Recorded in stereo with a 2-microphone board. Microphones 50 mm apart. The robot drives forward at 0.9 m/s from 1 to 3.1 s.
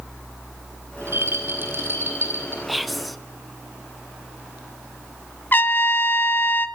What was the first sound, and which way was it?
A rattle, 55° right (ahead or behind).